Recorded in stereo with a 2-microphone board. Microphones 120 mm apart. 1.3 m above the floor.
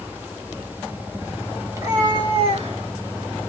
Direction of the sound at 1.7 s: 25° right (ahead or behind).